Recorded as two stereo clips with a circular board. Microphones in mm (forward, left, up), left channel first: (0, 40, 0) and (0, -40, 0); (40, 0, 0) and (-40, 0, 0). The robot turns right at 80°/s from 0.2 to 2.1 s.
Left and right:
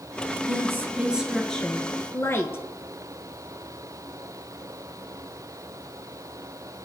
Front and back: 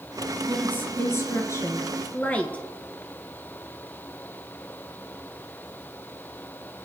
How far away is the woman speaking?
About 1.4 m.